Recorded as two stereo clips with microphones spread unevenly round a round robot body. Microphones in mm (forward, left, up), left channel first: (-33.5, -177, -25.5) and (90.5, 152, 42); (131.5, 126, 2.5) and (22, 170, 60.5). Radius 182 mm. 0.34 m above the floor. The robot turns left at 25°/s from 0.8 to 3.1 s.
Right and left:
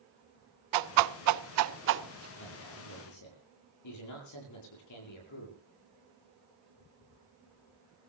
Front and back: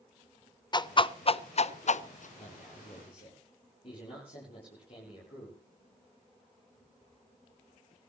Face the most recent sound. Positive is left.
turn(degrees=-75)